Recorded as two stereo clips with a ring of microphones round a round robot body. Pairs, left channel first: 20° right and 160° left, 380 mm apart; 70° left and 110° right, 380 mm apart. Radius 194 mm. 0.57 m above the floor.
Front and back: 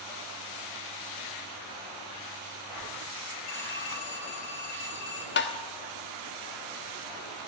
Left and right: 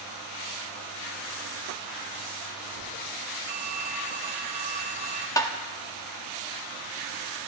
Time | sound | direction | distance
3.5 | a phone ringing | 40° right | 2.5 m
5.4 | tapping | 5° right | 1.0 m